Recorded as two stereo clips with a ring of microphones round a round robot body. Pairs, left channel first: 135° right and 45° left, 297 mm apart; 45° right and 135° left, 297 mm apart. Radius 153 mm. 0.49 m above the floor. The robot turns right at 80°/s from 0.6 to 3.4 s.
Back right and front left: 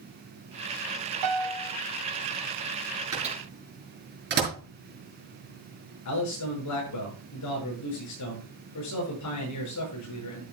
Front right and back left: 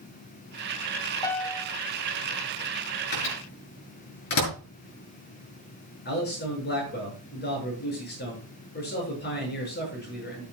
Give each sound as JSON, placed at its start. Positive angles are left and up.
{"t": 1.2, "sound": "a piano", "azimuth_deg": 30, "distance_m": 1.2}
{"t": 3.1, "sound": "a microwave", "azimuth_deg": -35, "distance_m": 6.0}
{"t": 6.0, "sound": "a man speaking", "azimuth_deg": -105, "distance_m": 7.5}